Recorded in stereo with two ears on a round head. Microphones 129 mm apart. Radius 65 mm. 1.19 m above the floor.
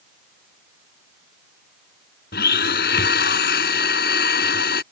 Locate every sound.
2.3 s a blender: 80° left